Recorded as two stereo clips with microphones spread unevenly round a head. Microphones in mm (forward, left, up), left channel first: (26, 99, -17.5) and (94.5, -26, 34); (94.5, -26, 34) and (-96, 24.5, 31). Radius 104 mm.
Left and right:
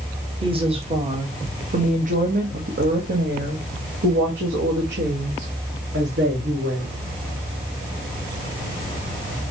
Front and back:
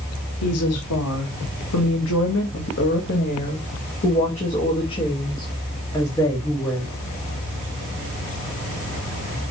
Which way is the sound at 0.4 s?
10° right.